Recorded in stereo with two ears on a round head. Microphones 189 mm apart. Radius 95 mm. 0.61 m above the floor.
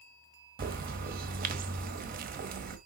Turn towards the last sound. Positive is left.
turn(degrees=-40)  # may be behind; listen again after turning